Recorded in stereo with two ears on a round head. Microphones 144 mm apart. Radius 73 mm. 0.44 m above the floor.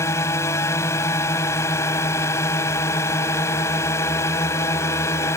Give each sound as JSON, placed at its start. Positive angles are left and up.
{"t": 0.0, "sound": "a drone", "side_deg": 15}